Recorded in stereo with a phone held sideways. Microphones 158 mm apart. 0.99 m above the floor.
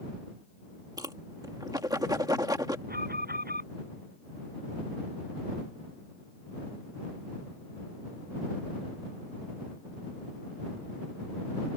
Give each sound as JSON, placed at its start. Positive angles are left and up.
{"t": 1.0, "sound": "a whoosh", "side_deg": -25}
{"t": 2.9, "sound": "an alarm", "side_deg": -80}